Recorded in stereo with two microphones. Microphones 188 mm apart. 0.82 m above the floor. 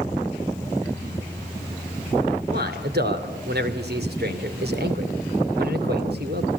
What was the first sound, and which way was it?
A man speaking, 60° right (ahead or behind).